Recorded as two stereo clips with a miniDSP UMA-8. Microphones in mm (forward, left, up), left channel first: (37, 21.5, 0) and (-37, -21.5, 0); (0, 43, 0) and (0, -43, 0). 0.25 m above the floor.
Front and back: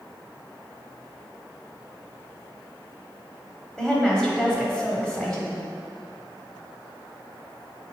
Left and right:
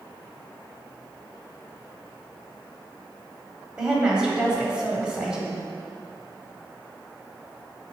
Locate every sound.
3.8 s a woman speaking: 35° right, 1.2 m